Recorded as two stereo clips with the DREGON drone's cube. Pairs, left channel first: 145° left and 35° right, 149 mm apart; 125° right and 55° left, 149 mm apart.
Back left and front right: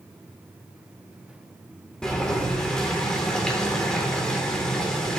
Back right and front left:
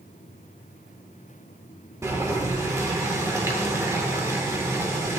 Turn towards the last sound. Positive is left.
turn(degrees=70)